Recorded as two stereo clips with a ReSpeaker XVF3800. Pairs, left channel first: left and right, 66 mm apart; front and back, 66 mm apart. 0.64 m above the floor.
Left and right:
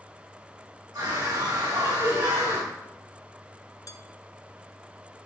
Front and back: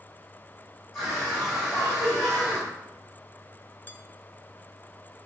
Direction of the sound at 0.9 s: 95° right.